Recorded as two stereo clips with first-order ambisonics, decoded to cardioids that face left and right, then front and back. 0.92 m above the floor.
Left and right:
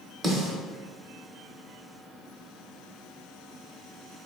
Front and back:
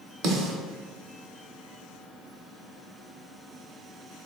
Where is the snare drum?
175° right, 0.8 m.